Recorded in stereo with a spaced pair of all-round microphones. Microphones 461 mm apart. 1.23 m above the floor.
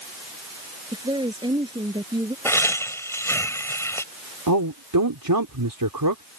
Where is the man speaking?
45° right (ahead or behind).